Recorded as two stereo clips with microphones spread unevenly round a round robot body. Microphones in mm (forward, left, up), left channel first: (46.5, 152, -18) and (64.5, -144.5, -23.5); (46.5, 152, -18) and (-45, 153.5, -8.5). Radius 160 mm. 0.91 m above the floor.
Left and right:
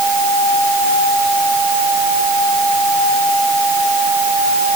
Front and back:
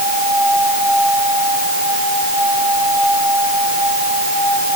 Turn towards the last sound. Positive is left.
No sound to turn to.